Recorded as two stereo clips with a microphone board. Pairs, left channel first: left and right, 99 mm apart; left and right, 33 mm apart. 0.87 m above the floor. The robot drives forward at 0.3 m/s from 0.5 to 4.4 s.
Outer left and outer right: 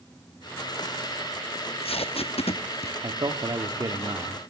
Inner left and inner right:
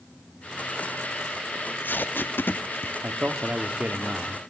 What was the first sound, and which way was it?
Tape being pulled, 70° left (ahead or behind).